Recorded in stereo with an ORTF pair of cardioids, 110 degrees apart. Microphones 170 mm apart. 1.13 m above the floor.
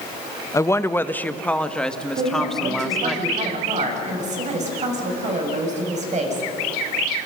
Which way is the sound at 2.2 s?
45° right.